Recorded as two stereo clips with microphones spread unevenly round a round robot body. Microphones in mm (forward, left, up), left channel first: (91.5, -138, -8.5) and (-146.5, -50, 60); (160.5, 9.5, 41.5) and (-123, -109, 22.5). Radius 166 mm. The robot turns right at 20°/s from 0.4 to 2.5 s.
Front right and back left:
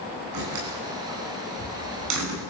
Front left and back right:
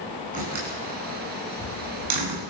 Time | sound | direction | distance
0.3 | a door slam | 135° left | 9 m